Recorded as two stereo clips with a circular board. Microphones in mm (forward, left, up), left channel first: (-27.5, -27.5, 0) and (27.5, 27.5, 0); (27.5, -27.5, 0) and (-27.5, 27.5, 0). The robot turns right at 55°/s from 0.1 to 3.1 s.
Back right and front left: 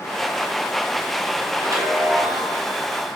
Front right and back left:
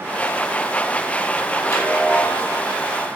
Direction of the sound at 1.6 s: 5° right.